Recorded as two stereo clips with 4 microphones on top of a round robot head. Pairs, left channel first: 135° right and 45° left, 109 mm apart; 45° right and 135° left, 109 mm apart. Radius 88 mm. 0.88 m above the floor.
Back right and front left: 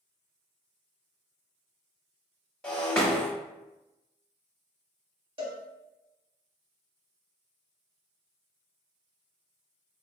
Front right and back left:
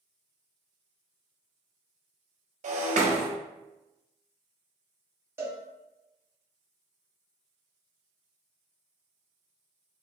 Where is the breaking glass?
140° left, 1.2 m.